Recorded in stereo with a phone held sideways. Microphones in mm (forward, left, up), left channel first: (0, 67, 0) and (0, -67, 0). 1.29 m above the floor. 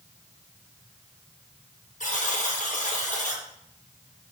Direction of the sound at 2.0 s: 65° left (ahead or behind).